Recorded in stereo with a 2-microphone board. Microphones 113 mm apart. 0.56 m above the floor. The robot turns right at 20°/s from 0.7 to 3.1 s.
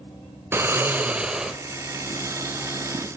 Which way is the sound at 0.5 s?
20° right (ahead or behind).